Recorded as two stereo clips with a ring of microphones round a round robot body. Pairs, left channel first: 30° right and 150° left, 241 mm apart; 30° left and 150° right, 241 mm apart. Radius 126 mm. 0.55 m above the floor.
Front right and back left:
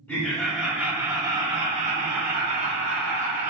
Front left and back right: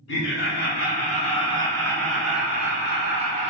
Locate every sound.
0.1 s laughter: 50° left, 1.4 m; by 3.5 s 155° left, 1.4 m